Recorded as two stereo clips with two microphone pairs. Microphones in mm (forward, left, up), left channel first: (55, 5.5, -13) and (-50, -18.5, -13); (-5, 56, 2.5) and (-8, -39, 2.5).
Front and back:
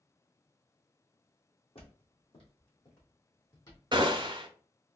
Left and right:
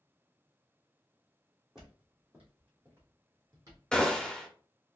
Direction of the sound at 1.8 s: 10° right.